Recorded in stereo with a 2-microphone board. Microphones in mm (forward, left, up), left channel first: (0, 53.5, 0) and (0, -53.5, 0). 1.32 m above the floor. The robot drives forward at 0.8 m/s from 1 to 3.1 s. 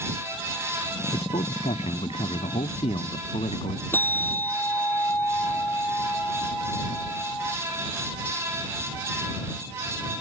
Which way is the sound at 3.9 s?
20° left (ahead or behind).